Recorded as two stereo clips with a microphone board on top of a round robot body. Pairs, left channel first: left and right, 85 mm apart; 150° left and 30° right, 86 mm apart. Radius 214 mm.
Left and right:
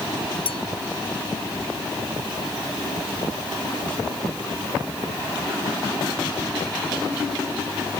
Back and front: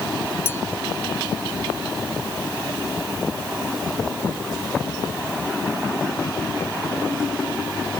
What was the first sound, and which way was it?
A clink, 85° left.